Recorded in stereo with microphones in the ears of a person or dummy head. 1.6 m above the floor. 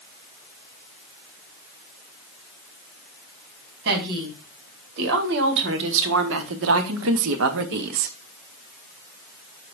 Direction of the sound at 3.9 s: 60° right (ahead or behind).